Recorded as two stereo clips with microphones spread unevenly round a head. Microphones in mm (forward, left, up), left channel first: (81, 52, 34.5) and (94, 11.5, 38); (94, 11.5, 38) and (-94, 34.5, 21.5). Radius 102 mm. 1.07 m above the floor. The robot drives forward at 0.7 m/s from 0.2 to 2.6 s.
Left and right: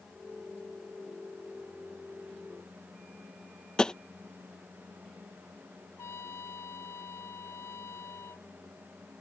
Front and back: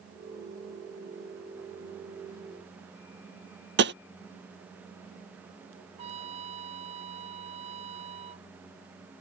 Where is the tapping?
Straight behind.